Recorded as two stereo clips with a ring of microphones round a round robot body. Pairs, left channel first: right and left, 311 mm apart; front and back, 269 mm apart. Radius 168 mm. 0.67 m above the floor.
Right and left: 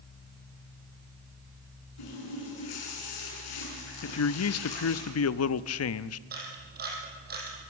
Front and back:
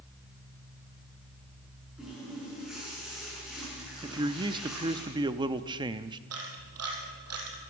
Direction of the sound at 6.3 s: 150° left.